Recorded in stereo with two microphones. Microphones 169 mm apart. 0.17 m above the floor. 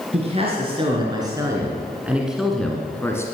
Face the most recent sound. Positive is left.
turn(degrees=15)  # may be behind; listen again after turning